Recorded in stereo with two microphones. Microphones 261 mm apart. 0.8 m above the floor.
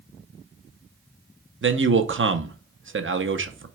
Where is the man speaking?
50° right (ahead or behind), 0.6 m.